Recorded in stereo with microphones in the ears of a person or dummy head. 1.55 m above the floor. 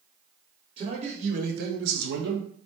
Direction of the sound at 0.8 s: 30° right (ahead or behind).